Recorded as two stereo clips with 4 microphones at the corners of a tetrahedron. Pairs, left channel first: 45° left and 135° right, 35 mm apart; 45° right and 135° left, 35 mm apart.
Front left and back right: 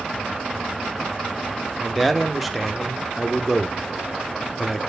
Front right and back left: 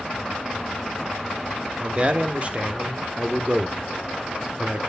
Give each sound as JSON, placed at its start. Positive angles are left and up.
{"t": 1.8, "sound": "a man speaking", "azimuth_deg": 140, "distance_m": 1.1}